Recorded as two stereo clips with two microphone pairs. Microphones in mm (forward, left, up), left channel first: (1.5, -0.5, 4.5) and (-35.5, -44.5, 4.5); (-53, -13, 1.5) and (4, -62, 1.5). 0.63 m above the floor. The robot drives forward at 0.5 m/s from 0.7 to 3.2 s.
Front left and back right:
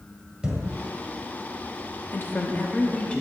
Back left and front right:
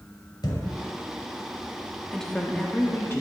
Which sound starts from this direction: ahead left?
A woman speaking, at 2.1 s.